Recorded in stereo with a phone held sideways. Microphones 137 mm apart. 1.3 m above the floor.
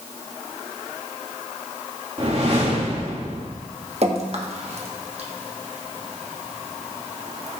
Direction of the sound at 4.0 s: 50° right (ahead or behind).